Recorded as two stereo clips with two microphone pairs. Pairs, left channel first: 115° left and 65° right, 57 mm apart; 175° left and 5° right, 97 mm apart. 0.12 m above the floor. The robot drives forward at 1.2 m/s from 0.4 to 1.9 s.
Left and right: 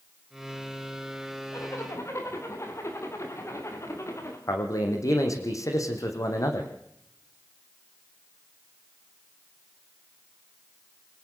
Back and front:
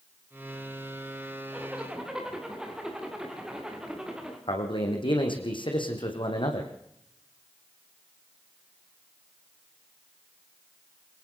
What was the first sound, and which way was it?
A zipper, 75° left.